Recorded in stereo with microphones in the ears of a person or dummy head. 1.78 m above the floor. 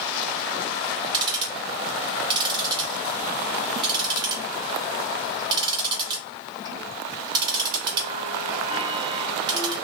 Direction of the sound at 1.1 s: 30° right (ahead or behind).